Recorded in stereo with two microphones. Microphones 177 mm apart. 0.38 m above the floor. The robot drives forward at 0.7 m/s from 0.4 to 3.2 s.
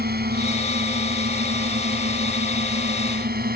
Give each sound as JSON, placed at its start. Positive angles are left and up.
{"t": 0.0, "sound": "a drone", "side_deg": -65}